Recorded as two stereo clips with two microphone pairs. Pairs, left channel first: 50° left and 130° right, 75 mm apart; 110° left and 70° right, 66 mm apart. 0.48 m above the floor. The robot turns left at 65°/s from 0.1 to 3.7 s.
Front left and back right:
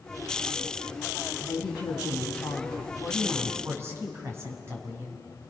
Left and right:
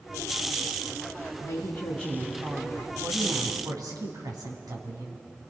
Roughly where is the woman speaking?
Left.